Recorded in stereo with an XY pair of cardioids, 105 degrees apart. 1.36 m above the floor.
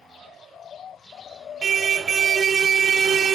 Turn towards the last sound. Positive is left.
turn(degrees=-50)